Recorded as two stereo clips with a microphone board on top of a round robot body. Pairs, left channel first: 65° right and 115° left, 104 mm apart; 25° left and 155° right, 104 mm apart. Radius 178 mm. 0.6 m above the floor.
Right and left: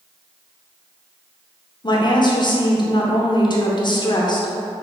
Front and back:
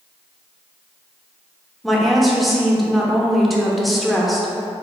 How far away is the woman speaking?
About 0.9 m.